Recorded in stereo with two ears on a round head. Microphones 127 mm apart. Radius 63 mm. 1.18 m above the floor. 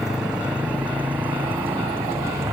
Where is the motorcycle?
5° right (ahead or behind); by 2.5 s 20° right (ahead or behind).